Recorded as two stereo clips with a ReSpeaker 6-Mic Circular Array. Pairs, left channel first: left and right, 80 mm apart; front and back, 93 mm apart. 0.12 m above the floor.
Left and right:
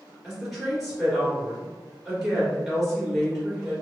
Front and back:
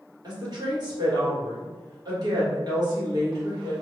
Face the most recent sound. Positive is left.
turn(degrees=-175)